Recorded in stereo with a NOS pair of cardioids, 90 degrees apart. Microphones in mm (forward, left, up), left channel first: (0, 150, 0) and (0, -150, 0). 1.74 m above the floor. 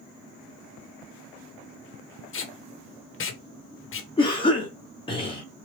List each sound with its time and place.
2.3 s tape being pulled: 45° left, 1.2 m
4.2 s a cough: 15° left, 1.1 m